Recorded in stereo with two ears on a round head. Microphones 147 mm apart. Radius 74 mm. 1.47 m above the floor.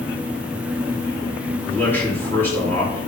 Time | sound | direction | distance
1.7 | a man speaking | 15° left (ahead or behind) | 2.5 m